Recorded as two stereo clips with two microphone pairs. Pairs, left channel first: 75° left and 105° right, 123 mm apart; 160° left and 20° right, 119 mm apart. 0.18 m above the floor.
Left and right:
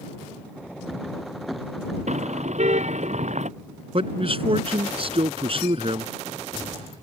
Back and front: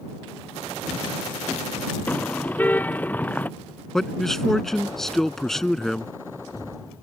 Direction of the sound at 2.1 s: 125° right.